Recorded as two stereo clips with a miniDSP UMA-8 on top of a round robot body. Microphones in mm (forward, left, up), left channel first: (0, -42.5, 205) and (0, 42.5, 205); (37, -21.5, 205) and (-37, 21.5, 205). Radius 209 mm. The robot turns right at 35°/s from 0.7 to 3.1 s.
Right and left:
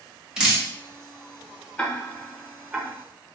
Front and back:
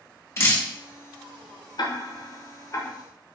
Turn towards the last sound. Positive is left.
turn(degrees=35)